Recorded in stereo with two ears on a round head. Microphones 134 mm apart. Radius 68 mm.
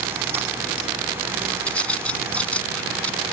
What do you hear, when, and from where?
1.7 s a bird: 10° left (ahead or behind)